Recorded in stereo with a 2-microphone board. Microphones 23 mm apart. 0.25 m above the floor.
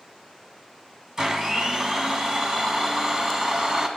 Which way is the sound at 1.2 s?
25° right (ahead or behind).